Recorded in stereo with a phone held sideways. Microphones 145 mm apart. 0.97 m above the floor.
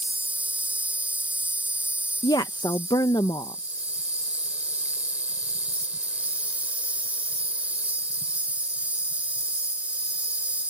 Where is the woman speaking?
30° left (ahead or behind).